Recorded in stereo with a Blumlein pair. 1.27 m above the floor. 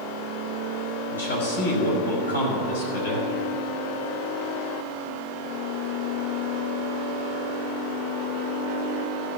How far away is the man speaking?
About 5.5 m.